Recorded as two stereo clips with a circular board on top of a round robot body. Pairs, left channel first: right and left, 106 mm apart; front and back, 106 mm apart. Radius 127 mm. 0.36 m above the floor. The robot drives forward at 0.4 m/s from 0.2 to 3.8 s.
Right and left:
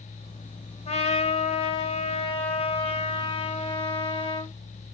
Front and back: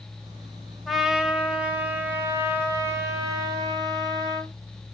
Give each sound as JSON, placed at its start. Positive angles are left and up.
{"t": 0.9, "sound": "a trumpet", "azimuth_deg": -90, "distance_m": 1.6}